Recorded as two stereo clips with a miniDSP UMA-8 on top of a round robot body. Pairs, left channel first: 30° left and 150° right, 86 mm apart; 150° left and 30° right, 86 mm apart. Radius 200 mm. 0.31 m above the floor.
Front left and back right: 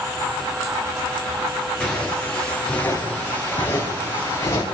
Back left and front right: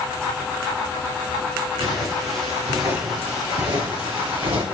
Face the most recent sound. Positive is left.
turn(degrees=-25)